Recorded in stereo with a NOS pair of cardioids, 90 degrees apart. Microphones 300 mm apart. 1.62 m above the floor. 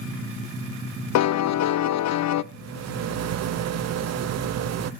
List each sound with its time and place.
1.1 s a piano: 60° left, 0.7 m
2.5 s a rattle: 55° right, 0.9 m